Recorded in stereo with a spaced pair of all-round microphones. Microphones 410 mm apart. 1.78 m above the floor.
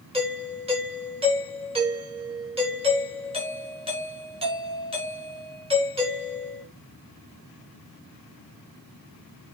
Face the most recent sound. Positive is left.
turn(degrees=-15)  # may be behind; listen again after turning